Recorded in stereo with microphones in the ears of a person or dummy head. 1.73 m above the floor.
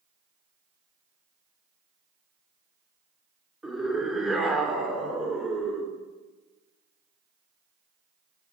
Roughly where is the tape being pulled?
No tape being pulled in this recording.